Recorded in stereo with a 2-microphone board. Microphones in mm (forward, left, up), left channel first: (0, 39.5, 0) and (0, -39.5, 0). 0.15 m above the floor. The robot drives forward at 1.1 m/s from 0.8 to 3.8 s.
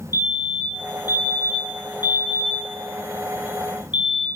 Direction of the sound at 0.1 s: 50° left (ahead or behind).